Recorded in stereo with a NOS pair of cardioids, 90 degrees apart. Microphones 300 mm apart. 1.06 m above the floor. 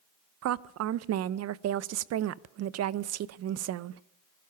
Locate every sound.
0.4 s a woman speaking: 60° right, 0.6 m